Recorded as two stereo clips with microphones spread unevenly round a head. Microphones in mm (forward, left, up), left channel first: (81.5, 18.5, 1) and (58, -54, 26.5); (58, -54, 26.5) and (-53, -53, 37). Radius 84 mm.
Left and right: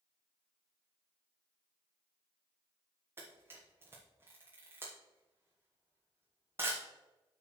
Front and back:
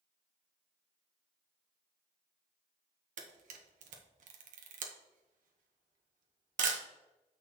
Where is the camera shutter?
Straight behind, 1.0 m.